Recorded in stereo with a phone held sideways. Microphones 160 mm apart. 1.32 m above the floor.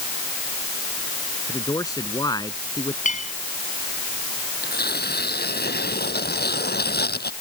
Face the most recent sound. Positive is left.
turn(degrees=80)